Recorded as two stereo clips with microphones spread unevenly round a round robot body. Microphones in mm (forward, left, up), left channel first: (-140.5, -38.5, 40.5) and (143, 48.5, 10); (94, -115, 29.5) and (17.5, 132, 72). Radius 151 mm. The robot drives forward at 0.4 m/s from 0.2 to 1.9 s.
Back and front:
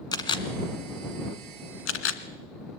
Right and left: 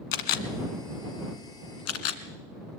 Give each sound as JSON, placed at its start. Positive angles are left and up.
{"t": 0.1, "sound": "a camera shutter", "azimuth_deg": -90, "distance_m": 1.3}